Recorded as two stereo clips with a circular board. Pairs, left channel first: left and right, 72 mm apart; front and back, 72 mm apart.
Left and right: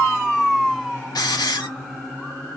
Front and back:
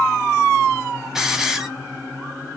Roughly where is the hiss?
Left.